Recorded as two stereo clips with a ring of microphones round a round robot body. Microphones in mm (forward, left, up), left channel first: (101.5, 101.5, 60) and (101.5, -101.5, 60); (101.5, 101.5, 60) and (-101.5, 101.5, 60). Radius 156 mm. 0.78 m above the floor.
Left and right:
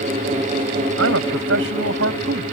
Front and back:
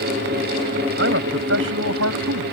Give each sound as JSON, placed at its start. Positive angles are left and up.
{"t": 1.0, "sound": "a man speaking", "azimuth_deg": -130}